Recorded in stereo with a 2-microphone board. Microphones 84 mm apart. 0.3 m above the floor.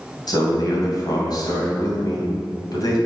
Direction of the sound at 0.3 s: 55° left (ahead or behind).